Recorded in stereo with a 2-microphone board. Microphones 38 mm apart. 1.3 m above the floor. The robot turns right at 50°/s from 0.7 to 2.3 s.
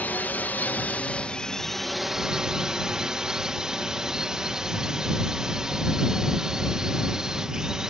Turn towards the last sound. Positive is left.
turn(degrees=-160)